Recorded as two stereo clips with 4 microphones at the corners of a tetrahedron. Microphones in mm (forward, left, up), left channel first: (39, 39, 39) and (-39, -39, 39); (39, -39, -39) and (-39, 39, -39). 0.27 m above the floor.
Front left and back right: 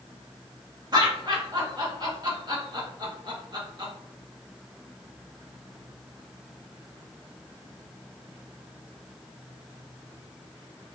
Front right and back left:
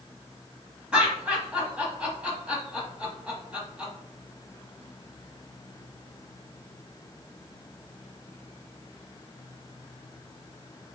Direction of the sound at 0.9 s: 150° right.